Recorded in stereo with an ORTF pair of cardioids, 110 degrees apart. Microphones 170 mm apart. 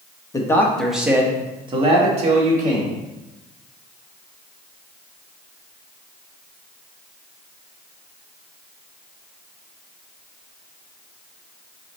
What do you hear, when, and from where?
0.3 s a man speaking: 20° left, 1.0 m; by 3.0 s 50° right, 1.9 m